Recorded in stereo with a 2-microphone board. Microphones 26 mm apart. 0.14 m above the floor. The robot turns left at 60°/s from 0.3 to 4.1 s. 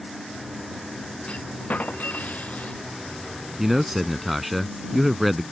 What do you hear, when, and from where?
1.3 s a clunk: 135° left; by 2.8 s 45° left
3.6 s a man speaking: 15° right (ahead or behind); by 5.4 s 5° right (ahead or behind)